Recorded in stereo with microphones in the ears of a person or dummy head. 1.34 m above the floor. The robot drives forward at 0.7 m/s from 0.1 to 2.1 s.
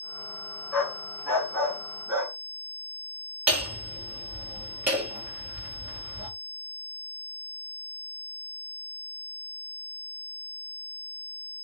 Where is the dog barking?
5° left (ahead or behind), 4 m.